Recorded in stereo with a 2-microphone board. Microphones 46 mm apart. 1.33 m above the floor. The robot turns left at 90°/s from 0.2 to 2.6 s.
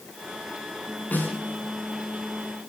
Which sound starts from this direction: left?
A snare drum, at 1.1 s.